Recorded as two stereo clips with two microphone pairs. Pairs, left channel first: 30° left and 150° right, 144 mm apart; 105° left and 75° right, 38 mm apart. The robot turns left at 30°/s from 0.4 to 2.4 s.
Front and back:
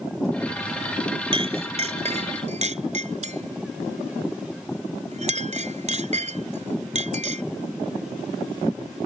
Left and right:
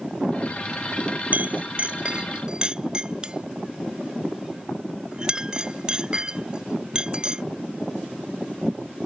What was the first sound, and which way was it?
A clink, 105° right.